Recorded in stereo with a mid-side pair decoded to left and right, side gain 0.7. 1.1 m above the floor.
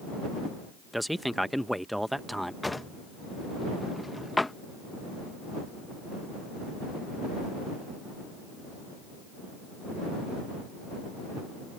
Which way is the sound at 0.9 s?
Straight ahead.